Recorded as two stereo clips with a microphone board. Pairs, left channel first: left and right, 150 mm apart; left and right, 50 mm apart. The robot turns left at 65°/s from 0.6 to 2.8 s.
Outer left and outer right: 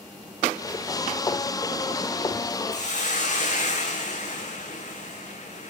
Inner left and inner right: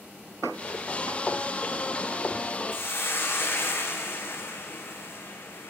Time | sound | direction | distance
2.7 | a hiss | 55° left (ahead or behind) | 3.5 m